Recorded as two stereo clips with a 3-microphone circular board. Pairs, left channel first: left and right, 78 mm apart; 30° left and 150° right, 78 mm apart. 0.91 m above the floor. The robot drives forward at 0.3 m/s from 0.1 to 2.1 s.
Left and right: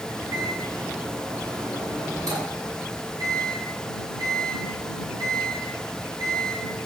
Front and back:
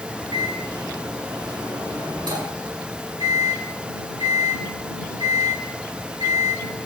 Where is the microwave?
130° right, 8 m.